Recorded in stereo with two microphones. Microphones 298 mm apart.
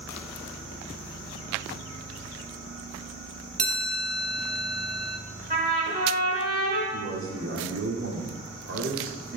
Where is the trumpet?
30° right (ahead or behind), 2 m.